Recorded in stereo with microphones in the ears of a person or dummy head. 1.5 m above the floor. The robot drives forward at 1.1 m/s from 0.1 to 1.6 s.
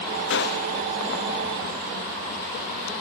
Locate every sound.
0.3 s a gunshot: 60° left (ahead or behind); by 0.8 s 35° left (ahead or behind)